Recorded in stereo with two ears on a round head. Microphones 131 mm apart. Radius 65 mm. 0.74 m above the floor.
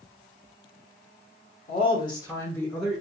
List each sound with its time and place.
1.7 s a woman speaking: 35° left (ahead or behind), 1.0 m; by 3.0 s 5° right (ahead or behind), 0.7 m